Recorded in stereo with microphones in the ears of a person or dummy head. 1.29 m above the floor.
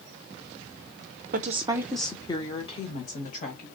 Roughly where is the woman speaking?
Right.